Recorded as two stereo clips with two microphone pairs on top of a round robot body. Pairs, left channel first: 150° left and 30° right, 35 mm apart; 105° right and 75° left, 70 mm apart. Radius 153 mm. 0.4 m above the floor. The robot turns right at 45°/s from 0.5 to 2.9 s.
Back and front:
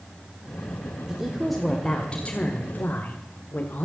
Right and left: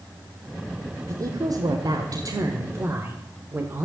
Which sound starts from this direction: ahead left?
A woman speaking, at 1.1 s.